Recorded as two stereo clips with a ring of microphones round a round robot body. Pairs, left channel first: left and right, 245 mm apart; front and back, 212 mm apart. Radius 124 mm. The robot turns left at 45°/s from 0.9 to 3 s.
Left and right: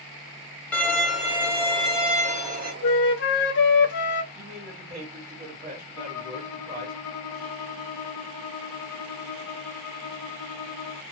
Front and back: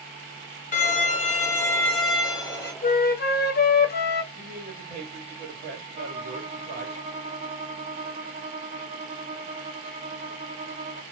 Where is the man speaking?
140° right, 1.3 m.